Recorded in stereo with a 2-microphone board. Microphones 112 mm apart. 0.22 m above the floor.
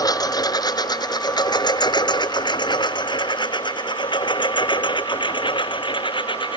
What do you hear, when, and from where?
0.0 s a lawn mower: 35° left (ahead or behind); by 6.6 s 45° left (ahead or behind)